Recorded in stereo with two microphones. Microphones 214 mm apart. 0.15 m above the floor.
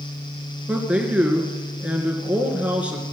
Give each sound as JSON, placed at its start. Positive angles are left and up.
{"t": 0.7, "sound": "a man speaking", "side_deg": -5, "distance_m": 2.5}